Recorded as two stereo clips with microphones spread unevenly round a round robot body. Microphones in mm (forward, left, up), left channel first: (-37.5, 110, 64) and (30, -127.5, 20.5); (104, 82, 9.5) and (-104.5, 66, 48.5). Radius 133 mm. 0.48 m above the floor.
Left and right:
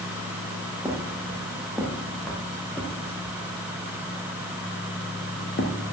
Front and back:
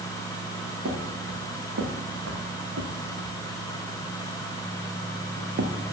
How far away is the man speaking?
No man speaking in this recording.